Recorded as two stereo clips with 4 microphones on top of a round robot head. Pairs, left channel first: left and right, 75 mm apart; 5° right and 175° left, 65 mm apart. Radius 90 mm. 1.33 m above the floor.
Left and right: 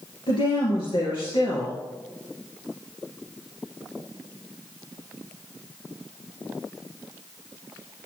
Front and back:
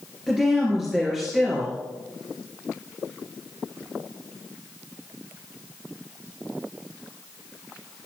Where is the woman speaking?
85° left, 3 m.